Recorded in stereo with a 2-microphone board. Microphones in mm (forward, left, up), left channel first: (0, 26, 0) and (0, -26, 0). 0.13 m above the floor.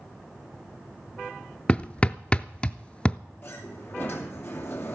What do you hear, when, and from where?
1.7 s hammering: 20° left (ahead or behind), 0.5 m
3.4 s a sliding door: 35° left (ahead or behind), 2.5 m